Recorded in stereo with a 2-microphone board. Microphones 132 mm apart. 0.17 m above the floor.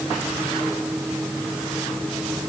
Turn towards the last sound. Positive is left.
No sound to turn to.